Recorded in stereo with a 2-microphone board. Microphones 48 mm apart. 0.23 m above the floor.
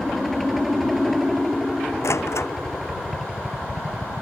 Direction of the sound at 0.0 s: Centre (ahead or behind).